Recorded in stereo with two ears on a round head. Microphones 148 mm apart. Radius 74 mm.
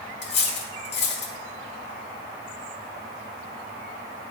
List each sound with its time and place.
0.2 s cutlery clinking: 75° left (ahead or behind), 1.5 m